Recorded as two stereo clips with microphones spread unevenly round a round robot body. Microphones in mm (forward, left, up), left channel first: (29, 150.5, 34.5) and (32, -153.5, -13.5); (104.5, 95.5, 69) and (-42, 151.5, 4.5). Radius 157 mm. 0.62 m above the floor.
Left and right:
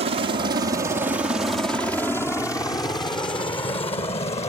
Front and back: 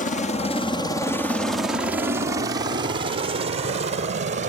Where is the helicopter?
60° right; by 4.5 s 165° left.